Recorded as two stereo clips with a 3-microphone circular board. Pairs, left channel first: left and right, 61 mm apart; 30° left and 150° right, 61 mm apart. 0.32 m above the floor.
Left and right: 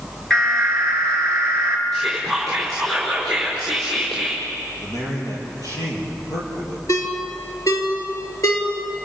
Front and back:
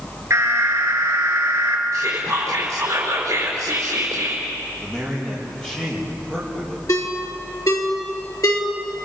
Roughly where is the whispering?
Behind.